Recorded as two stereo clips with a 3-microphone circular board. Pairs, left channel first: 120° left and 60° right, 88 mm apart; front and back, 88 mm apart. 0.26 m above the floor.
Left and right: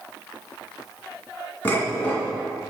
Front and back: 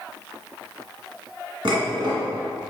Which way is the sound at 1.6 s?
Straight behind.